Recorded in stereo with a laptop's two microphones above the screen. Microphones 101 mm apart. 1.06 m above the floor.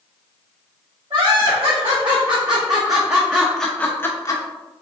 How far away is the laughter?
About 1.9 m.